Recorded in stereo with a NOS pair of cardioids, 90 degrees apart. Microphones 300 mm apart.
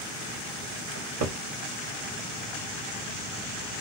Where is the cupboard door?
60° right, 1.2 m.